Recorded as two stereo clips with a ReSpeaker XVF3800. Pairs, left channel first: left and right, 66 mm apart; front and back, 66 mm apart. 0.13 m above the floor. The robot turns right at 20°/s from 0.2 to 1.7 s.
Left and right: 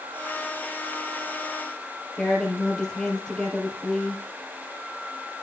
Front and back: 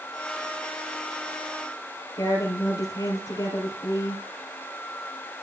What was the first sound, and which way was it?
A woman speaking, 10° left.